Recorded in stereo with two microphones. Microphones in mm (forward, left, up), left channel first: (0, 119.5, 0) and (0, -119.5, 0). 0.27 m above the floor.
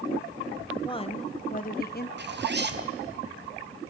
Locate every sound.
0.8 s a woman speaking: 20° left (ahead or behind), 1.3 m; by 2.1 s 45° left (ahead or behind), 1.6 m
2.2 s a zipper: 45° right (ahead or behind), 1.5 m